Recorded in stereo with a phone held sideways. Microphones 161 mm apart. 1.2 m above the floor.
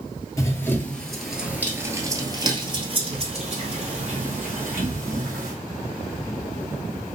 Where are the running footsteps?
20° left (ahead or behind), 1.2 m; by 5.6 s 65° right (ahead or behind), 2.5 m.